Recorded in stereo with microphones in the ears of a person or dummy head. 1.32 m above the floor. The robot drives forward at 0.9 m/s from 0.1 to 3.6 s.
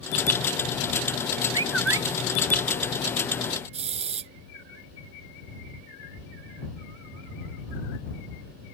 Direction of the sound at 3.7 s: 40° right (ahead or behind).